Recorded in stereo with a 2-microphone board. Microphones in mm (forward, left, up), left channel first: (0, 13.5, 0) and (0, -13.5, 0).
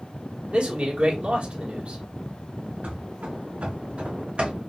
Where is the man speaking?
50° right (ahead or behind), 2.0 m.